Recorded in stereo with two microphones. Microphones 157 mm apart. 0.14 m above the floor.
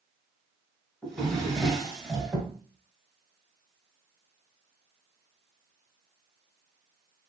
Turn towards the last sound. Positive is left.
turn(degrees=0)  # may be behind; listen again after turning